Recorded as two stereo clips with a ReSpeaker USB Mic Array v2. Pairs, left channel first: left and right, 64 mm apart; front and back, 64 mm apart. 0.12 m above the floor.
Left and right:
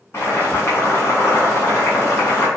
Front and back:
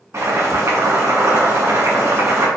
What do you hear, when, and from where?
0.1 s boiling: 140° left, 1.8 m